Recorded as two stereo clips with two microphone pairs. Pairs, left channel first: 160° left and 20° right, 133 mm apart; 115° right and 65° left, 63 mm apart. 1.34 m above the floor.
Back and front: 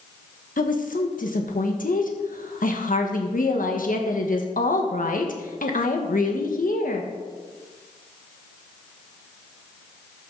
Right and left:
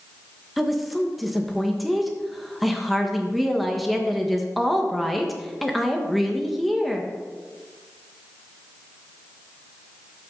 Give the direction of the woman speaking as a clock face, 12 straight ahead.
7 o'clock.